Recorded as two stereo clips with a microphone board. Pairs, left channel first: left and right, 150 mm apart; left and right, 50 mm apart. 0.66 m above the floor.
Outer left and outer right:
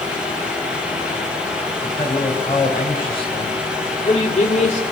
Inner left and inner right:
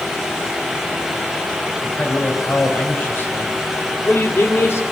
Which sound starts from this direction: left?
A man speaking, at 1.8 s.